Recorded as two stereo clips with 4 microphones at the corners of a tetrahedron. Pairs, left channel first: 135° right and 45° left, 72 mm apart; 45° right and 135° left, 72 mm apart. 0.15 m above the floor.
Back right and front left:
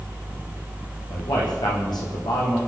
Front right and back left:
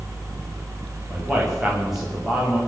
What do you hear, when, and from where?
1.1 s a man speaking: 135° right, 7 m